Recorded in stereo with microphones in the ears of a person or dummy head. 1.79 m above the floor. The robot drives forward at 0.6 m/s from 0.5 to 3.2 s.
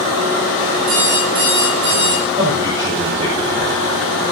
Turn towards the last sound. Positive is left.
turn(degrees=-25)  # may be behind; listen again after turning